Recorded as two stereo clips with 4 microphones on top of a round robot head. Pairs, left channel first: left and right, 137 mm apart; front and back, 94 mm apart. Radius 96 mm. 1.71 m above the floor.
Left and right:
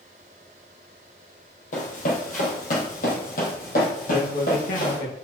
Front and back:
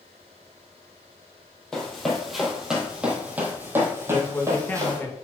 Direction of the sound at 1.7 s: 85° left.